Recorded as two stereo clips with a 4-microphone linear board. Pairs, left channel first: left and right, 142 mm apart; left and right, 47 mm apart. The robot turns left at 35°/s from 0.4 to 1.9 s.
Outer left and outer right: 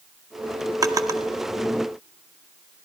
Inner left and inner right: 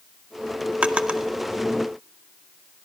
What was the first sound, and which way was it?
A drawer, 25° right (ahead or behind).